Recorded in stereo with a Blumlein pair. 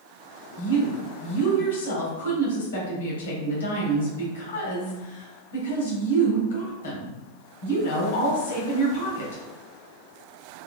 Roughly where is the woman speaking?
Ahead left.